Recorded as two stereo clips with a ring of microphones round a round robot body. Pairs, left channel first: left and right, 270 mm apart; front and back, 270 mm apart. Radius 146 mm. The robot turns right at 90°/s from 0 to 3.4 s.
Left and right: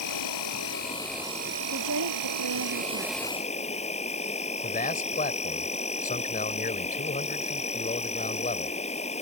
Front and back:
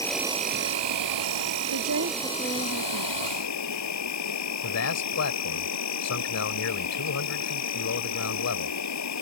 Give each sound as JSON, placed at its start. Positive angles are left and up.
{"t": 0.0, "sound": "an insect", "azimuth_deg": 80}
{"t": 1.7, "sound": "a woman speaking", "azimuth_deg": -155}
{"t": 4.6, "sound": "a man speaking", "azimuth_deg": 30}